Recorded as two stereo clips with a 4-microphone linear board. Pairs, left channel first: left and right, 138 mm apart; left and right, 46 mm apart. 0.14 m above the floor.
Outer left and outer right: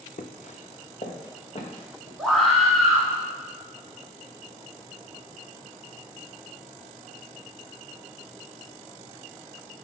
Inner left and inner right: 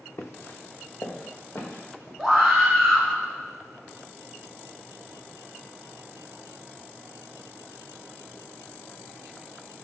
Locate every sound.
0.2 s footsteps: 65° left (ahead or behind), 0.8 m; by 2.1 s 45° left (ahead or behind), 3 m
2.2 s a scream: centre (ahead or behind), 1.3 m